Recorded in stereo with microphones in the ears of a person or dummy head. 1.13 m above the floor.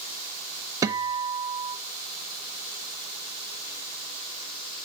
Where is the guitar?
25° right (ahead or behind), 0.7 m.